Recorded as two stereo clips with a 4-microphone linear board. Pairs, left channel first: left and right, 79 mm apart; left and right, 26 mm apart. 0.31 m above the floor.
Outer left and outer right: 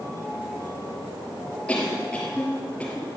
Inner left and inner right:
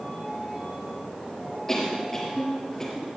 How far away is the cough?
About 5 m.